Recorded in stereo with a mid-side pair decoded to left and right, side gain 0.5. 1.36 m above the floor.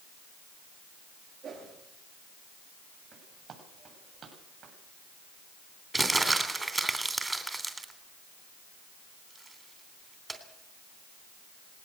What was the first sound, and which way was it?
A whoosh, 55° right.